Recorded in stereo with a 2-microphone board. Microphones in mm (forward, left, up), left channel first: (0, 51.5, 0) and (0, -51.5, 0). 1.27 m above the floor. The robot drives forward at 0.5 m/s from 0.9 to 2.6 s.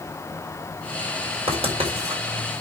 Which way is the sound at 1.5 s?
75° right (ahead or behind).